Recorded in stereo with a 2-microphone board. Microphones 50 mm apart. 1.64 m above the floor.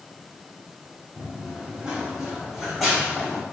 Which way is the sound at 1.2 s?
25° right (ahead or behind).